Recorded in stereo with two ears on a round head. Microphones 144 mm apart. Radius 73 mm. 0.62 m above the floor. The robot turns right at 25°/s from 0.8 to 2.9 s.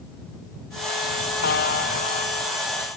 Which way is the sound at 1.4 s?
70° left (ahead or behind).